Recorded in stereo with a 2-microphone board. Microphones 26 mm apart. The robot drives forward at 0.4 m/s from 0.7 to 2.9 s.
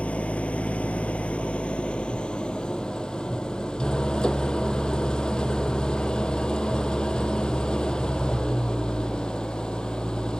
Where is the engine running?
65° left (ahead or behind), 0.8 m; by 10.4 s 40° left (ahead or behind), 1.2 m.